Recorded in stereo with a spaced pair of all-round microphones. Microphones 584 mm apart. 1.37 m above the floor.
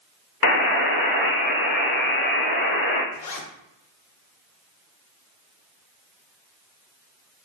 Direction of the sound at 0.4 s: 40° left (ahead or behind).